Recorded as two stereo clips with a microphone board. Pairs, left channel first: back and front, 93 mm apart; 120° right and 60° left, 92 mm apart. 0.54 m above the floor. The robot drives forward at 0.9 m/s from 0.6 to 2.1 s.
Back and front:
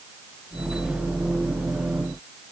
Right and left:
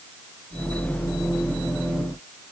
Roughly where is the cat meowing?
No cat meowing in this recording.